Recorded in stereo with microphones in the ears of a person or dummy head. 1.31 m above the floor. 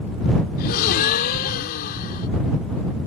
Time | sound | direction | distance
0.6 | a gasp | 50° left (ahead or behind) | ?